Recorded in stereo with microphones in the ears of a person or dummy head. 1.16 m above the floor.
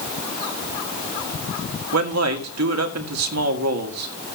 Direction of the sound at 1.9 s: 80° right.